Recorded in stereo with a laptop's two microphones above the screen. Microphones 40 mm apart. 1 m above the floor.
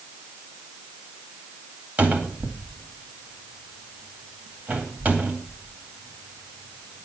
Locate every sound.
2.0 s a cupboard door: 50° right (ahead or behind), 2 m